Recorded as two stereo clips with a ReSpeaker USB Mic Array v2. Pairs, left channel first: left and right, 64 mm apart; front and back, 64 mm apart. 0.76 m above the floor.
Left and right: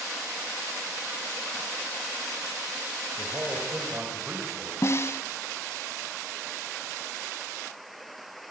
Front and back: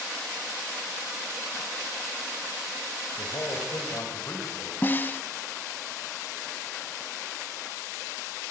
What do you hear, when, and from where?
3.2 s a man speaking: 35° right, 5 m
4.8 s a snare drum: 55° left, 0.9 m